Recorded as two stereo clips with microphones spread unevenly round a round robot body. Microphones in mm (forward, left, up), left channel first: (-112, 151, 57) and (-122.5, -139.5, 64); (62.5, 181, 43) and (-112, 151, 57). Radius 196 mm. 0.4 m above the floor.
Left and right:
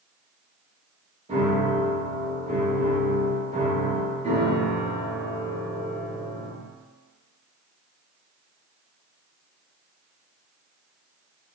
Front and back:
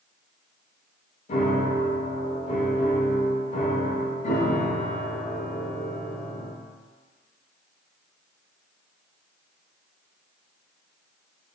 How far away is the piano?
About 0.7 m.